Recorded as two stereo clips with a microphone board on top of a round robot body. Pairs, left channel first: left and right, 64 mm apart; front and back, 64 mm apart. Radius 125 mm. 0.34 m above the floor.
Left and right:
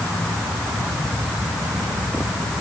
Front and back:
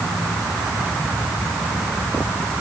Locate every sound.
Only background noise.